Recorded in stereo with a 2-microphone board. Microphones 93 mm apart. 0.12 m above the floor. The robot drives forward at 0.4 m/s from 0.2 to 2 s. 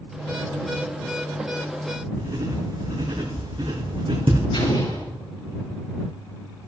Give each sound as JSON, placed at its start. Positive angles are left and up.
{"t": 2.2, "sound": "writing", "side_deg": -80, "distance_m": 3.5}
{"t": 4.5, "sound": "an explosion", "side_deg": 80, "distance_m": 5.0}